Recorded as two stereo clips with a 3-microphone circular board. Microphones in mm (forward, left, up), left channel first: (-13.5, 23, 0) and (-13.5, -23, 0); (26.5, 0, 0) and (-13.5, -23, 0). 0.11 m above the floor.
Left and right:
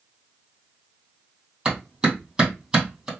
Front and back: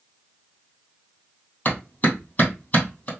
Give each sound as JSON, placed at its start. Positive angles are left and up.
{"t": 1.6, "sound": "a clap", "azimuth_deg": -20, "distance_m": 2.5}